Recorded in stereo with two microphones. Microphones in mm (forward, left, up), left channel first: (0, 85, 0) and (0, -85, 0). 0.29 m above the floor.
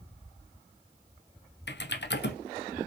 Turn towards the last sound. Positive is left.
turn(degrees=75)  # may be behind; listen again after turning